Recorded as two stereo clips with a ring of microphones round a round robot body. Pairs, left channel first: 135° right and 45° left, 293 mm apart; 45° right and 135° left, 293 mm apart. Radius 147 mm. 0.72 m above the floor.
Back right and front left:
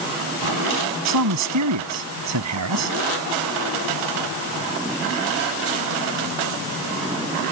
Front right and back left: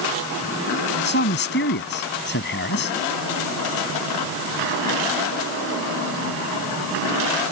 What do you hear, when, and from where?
1.1 s a man speaking: 10° left